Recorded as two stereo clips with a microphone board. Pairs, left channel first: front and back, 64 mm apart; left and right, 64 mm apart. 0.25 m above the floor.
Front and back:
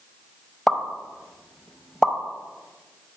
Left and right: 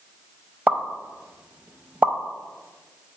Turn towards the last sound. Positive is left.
turn(degrees=-75)